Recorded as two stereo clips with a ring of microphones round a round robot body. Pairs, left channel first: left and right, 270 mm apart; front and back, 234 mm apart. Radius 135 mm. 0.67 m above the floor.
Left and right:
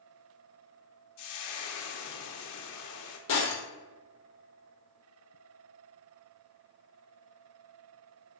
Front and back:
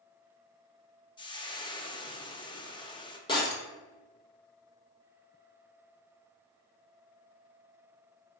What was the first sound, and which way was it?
Frying, 70° left.